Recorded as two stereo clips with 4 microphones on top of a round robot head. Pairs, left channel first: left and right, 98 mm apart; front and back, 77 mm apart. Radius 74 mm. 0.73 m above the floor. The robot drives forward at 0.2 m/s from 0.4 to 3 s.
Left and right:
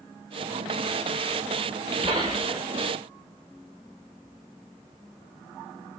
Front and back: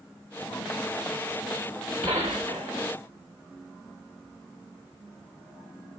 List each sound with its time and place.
2.0 s a gunshot: 135° right, 0.5 m; by 2.9 s 150° right, 0.7 m